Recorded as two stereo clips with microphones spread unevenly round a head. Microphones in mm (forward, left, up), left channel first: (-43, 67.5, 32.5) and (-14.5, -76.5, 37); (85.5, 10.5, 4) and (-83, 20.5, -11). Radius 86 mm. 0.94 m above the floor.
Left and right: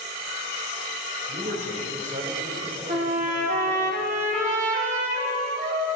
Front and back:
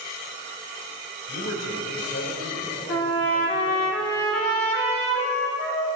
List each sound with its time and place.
1.3 s a man speaking: 35° right, 4 m
2.9 s a trumpet: 40° right, 3 m